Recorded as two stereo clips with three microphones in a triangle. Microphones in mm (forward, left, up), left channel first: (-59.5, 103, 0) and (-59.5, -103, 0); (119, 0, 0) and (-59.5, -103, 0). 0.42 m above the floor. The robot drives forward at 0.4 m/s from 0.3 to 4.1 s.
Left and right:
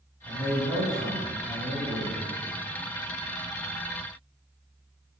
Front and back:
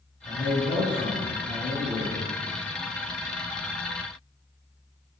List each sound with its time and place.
0.2 s a man speaking: 30° right, 1.8 m; by 2.2 s 55° right, 1.3 m